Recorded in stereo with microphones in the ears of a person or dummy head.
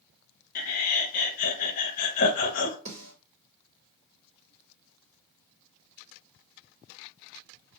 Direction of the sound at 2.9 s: 35° right (ahead or behind).